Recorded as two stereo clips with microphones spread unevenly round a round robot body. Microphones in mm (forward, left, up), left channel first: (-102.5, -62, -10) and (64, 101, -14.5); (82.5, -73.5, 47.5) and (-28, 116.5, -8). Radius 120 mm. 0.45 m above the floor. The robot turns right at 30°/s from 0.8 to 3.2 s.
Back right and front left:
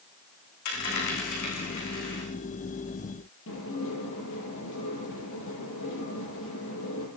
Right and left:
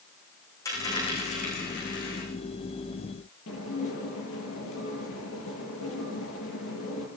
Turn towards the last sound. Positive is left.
turn(degrees=-95)